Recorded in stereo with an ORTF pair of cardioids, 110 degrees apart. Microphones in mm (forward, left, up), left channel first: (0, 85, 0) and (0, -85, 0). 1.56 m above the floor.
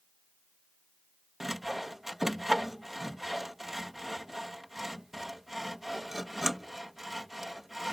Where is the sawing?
Straight ahead.